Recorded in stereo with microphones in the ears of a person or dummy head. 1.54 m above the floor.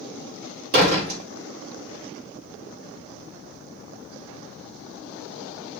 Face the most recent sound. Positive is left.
turn(degrees=-45)  # may be behind; listen again after turning